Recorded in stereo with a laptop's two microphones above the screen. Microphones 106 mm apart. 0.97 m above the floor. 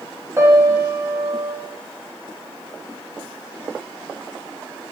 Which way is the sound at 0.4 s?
25° right (ahead or behind).